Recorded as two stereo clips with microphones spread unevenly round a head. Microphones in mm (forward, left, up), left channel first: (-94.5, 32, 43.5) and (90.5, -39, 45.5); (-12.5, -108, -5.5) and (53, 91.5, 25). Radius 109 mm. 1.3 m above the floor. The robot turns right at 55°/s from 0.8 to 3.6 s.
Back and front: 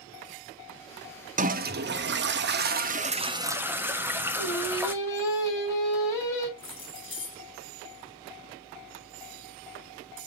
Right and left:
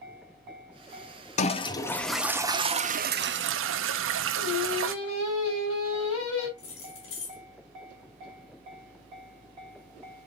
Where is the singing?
125° right, 5.5 m.